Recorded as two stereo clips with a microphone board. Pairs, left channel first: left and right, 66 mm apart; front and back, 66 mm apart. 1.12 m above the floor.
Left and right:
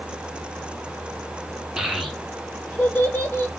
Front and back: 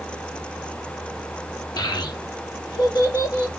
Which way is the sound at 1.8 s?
10° right.